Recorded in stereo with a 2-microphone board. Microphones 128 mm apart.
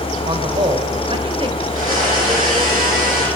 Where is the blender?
80° right, 8.5 m.